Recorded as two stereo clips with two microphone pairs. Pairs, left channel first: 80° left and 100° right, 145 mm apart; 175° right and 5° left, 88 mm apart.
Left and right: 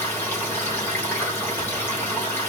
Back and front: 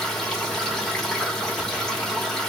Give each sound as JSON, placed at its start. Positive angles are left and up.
{"t": 0.0, "sound": "running water", "azimuth_deg": 110, "distance_m": 1.2}